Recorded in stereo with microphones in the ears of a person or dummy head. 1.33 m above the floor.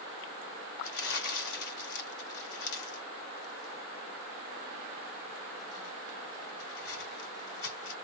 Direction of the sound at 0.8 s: 60° left (ahead or behind).